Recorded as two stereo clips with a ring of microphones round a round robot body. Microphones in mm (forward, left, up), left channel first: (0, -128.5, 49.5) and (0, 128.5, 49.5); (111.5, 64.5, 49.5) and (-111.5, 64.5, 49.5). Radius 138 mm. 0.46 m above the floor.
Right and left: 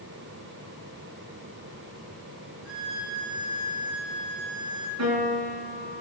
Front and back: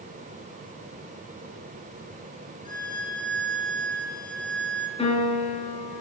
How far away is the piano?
About 6.5 m.